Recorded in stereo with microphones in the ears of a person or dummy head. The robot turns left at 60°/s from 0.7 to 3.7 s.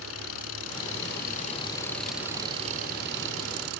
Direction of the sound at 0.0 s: 85° left.